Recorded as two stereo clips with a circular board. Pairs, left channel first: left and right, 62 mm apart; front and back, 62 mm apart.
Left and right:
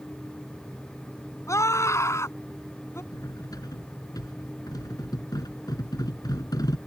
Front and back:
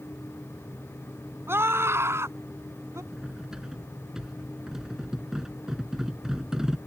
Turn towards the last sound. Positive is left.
turn(degrees=100)